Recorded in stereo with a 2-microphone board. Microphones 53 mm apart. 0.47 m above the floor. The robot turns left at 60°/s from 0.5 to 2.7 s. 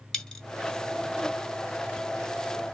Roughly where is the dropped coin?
Centre.